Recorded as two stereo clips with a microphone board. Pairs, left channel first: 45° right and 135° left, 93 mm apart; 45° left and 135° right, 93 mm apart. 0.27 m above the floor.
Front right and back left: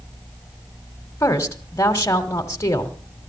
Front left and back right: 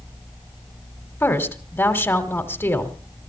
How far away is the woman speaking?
About 1.7 m.